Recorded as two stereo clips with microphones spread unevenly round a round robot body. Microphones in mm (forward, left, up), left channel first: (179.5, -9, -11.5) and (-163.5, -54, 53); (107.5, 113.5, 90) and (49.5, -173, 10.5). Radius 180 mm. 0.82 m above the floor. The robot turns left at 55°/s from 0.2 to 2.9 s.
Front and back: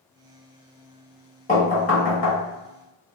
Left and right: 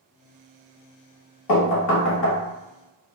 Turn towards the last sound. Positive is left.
turn(degrees=-10)